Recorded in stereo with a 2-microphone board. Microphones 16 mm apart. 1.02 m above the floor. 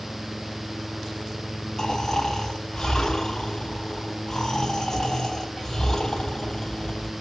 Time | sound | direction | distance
1.8 | snoring | 30° left (ahead or behind) | 3 m